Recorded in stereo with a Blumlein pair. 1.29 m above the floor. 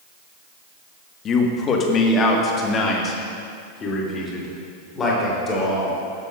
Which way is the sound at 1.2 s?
25° left.